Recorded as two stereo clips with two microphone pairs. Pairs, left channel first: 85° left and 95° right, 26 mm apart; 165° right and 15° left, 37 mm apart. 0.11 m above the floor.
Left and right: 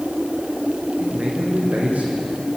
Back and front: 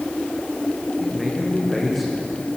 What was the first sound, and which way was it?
A man speaking, 80° right.